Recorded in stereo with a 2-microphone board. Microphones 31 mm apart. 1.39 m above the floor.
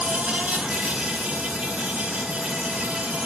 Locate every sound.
0.0 s an insect: 40° right (ahead or behind), 8 m